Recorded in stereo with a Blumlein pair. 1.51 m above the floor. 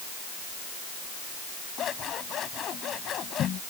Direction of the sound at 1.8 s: 30° left.